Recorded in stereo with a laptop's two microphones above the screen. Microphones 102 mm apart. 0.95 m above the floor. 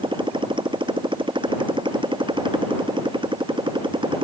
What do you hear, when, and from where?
0.0 s a motorcycle: 55° right (ahead or behind)